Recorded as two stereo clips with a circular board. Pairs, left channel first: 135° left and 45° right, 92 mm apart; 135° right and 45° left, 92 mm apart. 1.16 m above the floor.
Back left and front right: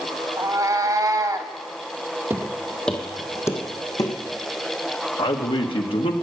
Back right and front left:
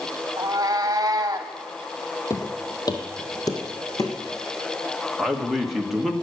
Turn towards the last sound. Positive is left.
turn(degrees=130)